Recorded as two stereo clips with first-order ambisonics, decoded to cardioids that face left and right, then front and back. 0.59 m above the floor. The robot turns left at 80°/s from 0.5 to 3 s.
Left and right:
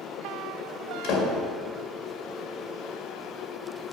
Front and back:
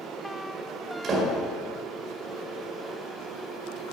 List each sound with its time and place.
1.0 s a door slam: 130° left, 1.8 m; by 1.3 s 105° left, 1.8 m